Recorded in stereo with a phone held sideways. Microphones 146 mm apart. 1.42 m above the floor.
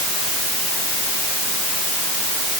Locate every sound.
Only background noise.